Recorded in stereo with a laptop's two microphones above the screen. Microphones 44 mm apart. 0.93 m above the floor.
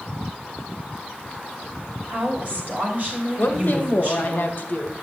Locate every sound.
2.1 s a woman speaking: 45° right (ahead or behind), 3 m
3.4 s a woman speaking: 50° left (ahead or behind), 0.9 m